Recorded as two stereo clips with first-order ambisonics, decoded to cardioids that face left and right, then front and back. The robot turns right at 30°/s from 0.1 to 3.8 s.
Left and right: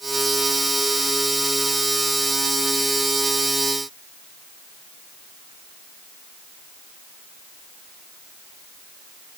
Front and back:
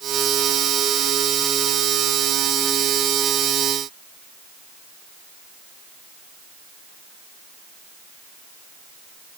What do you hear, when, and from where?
Only background noise.